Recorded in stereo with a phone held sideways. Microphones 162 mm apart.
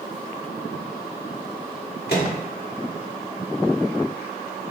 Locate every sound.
2.1 s a microwave: 90° left, 1.3 m